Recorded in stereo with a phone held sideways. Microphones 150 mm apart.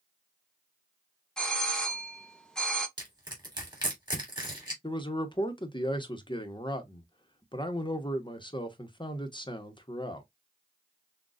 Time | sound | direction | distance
1.4 | a doorbell | 5° left (ahead or behind) | 0.8 m
3.0 | crushing | 25° right (ahead or behind) | 3 m
4.8 | a man speaking | 30° left (ahead or behind) | 0.9 m